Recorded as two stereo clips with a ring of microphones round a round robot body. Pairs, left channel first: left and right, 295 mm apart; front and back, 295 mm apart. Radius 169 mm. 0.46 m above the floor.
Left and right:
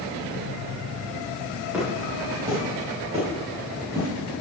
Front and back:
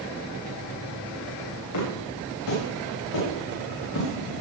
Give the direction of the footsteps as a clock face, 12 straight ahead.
12 o'clock.